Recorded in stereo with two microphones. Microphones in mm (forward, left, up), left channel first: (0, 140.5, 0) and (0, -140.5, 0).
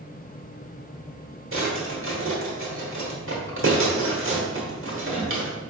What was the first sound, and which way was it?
A drawer, 50° right (ahead or behind).